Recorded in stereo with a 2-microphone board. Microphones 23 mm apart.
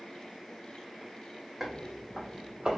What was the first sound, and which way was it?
Footsteps, 15° right (ahead or behind).